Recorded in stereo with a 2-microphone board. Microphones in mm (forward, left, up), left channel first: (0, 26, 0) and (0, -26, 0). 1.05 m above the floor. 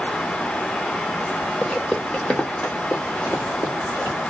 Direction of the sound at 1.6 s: 10° left (ahead or behind).